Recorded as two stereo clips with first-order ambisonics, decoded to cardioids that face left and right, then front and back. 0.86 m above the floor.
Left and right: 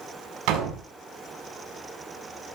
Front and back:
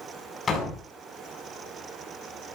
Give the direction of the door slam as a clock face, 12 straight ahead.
2 o'clock.